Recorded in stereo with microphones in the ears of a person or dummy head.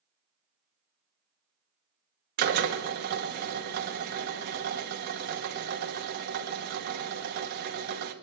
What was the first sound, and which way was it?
A drill, 55° right (ahead or behind).